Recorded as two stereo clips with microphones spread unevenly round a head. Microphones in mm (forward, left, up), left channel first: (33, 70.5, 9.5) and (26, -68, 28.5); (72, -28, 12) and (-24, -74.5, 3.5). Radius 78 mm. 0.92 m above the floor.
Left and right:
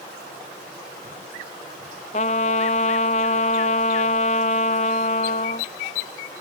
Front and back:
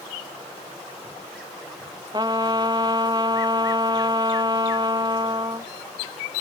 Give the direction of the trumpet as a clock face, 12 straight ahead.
7 o'clock.